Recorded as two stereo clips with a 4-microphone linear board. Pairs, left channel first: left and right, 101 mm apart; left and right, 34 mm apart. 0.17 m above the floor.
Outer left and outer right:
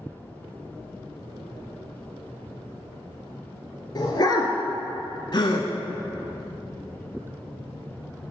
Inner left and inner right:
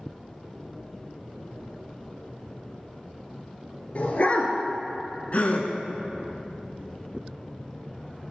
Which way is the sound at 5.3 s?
50° left (ahead or behind).